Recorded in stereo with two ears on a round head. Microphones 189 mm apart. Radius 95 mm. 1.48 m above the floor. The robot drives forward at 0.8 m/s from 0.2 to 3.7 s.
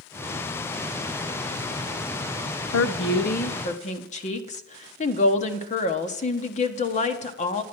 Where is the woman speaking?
75° left (ahead or behind), 0.7 m; by 7.6 s 35° left (ahead or behind), 1.2 m.